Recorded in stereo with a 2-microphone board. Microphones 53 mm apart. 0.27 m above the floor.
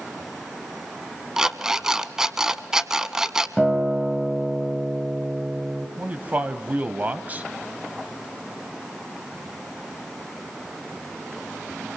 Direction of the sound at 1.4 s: 10° right (ahead or behind).